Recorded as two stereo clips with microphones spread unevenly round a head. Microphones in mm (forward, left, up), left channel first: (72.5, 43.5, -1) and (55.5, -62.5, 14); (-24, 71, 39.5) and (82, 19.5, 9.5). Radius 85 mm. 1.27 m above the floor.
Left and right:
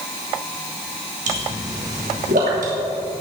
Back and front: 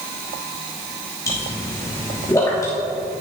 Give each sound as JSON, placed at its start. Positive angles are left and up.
{"t": 1.3, "sound": "a pop", "azimuth_deg": -130, "distance_m": 3.0}